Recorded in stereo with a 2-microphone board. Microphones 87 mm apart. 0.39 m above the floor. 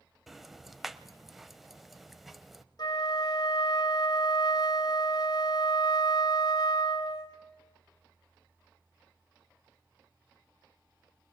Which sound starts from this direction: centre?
Ticking, at 0.3 s.